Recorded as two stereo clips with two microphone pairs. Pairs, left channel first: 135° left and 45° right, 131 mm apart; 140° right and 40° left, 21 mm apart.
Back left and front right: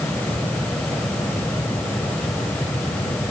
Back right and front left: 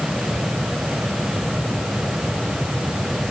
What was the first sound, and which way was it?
Only background noise.